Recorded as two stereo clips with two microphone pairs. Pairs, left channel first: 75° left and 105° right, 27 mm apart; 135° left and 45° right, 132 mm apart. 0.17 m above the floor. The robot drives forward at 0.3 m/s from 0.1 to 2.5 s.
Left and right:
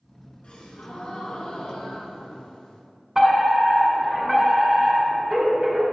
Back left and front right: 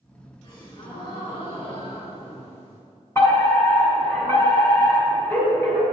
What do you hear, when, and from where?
0.4 s a gasp: 90° left, 2.5 m; by 2.8 s 110° left, 2.5 m
3.1 s a fire alarm: 175° right, 2 m